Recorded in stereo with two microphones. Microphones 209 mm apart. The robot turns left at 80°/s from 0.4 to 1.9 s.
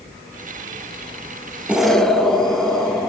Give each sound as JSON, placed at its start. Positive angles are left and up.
{"t": 1.7, "sound": "an explosion", "side_deg": -5, "distance_m": 1.6}